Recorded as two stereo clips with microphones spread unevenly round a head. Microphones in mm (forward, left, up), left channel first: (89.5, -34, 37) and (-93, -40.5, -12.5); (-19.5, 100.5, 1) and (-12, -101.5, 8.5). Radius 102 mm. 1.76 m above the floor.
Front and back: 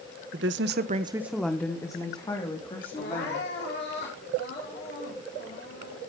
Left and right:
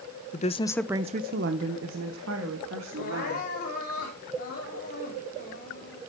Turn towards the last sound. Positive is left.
turn(degrees=45)